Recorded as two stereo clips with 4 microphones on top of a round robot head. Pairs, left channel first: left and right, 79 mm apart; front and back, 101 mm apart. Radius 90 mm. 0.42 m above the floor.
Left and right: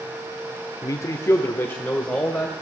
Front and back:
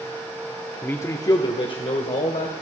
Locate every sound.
0.8 s a man speaking: 70° left, 0.9 m; by 2.5 s 15° left, 1.9 m